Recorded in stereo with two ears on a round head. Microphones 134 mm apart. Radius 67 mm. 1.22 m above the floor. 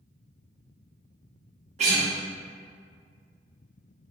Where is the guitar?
50° right (ahead or behind), 0.9 m.